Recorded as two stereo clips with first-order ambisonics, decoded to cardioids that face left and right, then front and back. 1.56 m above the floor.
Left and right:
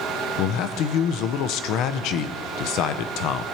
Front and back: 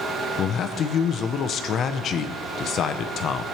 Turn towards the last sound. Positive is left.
turn(degrees=55)